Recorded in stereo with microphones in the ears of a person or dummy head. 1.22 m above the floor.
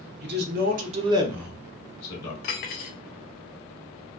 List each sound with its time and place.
0.2 s a man speaking: 50° right (ahead or behind), 0.9 m; by 2.3 s 25° left (ahead or behind), 1.0 m
2.4 s cutlery clinking: 35° left (ahead or behind), 0.5 m